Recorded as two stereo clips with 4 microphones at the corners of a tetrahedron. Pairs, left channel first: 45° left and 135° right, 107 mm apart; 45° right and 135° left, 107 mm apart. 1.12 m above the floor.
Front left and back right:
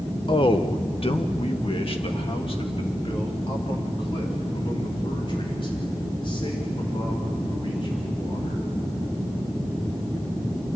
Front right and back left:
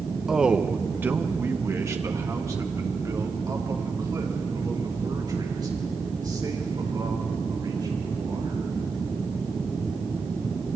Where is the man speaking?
50° left, 0.9 m; by 8.6 s 85° left, 6 m.